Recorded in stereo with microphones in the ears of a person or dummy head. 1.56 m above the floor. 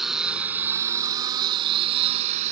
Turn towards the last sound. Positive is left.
turn(degrees=-40)  # may be behind; listen again after turning